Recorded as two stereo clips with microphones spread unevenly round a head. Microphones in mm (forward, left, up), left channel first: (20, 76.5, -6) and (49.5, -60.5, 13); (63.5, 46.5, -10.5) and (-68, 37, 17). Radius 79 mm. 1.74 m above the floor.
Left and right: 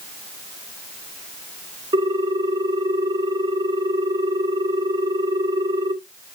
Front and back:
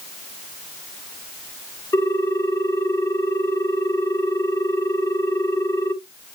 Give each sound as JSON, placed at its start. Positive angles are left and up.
{"t": 1.9, "sound": "a ringtone", "azimuth_deg": -70, "distance_m": 1.3}